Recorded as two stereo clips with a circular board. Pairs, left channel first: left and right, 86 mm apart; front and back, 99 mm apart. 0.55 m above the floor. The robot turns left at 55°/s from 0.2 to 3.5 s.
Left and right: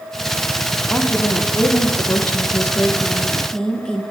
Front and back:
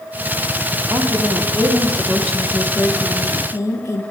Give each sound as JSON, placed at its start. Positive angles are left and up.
{"t": 0.9, "sound": "a woman speaking", "azimuth_deg": 160, "distance_m": 0.9}